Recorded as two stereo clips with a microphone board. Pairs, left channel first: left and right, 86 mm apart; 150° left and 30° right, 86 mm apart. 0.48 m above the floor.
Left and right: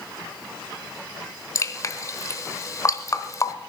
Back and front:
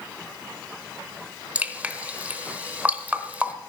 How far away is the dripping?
About 1.0 m.